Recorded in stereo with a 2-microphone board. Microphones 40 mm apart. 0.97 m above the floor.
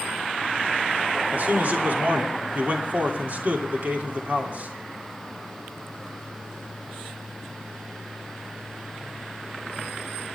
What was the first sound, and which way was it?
A man speaking, 45° right (ahead or behind).